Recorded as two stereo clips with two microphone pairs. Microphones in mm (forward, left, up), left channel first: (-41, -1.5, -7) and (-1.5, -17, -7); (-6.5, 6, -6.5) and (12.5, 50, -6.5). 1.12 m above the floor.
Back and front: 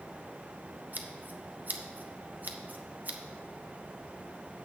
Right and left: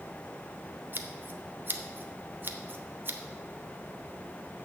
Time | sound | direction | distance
0.9 | scissors | 25° left | 0.7 m